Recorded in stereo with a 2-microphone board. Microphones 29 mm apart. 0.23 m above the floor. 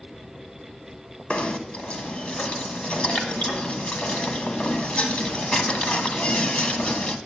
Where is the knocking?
45° left (ahead or behind), 1.0 m.